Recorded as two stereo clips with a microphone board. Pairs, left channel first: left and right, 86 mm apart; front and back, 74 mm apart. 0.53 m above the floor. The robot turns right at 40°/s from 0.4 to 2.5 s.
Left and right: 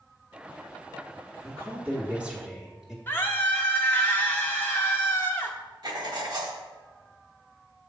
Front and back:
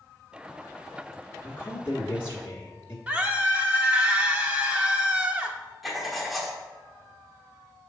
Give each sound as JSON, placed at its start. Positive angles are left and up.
{"t": 1.4, "sound": "a woman speaking", "azimuth_deg": -55, "distance_m": 1.1}
{"t": 3.1, "sound": "a scream", "azimuth_deg": 135, "distance_m": 0.8}
{"t": 5.8, "sound": "writing", "azimuth_deg": -90, "distance_m": 1.2}